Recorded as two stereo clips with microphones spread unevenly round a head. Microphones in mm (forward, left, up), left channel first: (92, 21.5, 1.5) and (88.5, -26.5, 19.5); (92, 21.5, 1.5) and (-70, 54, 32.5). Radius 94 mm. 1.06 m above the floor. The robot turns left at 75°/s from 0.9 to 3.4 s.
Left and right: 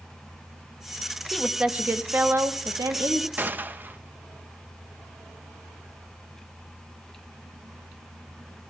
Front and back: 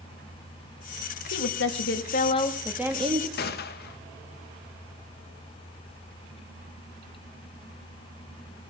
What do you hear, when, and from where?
1.3 s a woman speaking: 5° left, 1.4 m; by 3.3 s 140° right, 1.4 m
3.4 s a gunshot: 35° right, 1.0 m